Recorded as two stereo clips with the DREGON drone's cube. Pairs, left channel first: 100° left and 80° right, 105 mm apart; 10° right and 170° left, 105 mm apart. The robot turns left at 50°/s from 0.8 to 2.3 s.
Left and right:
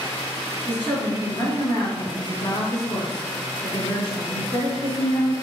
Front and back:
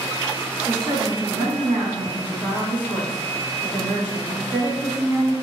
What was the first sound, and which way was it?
A woman speaking, 170° left.